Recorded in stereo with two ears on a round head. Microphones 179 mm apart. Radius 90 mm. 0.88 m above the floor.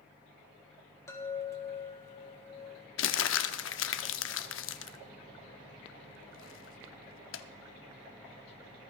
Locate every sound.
1.1 s a chime: 15° left (ahead or behind), 1.8 m
3.0 s crumpling: 75° left (ahead or behind), 0.8 m